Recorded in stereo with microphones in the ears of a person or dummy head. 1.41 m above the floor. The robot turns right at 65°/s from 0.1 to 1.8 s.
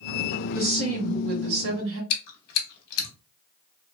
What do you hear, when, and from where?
0.6 s a woman speaking: 155° right, 1.3 m; by 2.0 s 75° right, 1.3 m
2.1 s chewing: 60° left (ahead or behind), 1.0 m